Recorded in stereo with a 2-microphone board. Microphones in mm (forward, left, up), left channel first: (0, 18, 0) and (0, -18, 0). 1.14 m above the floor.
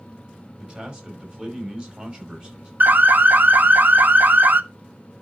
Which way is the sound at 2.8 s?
55° right (ahead or behind).